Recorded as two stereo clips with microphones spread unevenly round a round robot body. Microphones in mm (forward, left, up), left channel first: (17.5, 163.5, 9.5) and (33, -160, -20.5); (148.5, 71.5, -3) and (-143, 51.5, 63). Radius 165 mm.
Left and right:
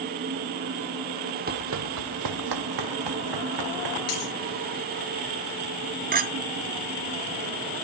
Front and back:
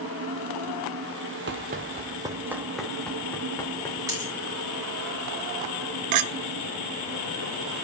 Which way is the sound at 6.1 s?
145° right.